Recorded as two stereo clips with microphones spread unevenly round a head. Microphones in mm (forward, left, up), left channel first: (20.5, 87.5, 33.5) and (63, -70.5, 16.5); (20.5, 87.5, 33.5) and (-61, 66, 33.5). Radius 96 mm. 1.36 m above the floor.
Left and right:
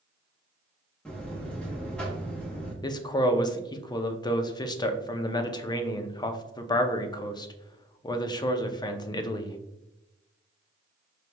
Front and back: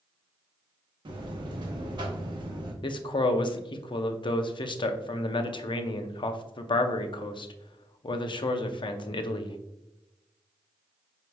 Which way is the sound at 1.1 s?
175° right.